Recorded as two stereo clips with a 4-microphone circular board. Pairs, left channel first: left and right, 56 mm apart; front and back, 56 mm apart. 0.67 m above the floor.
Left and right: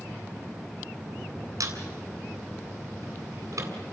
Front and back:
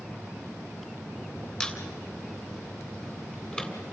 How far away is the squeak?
About 3 m.